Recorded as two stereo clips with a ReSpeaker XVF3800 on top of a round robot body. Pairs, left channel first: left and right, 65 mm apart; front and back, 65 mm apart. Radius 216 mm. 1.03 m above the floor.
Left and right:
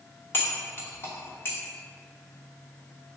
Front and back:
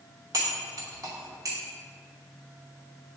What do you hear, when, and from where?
0.3 s cutlery clinking: 150° left, 0.8 m